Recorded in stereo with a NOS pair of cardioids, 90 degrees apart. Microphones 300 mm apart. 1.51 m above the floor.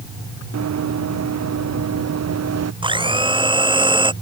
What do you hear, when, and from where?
0.5 s running footsteps: 60° right; by 2.7 s 55° right
2.8 s a blender: 15° right